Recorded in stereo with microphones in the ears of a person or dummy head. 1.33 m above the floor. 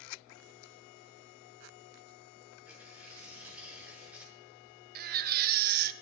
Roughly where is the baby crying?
Right.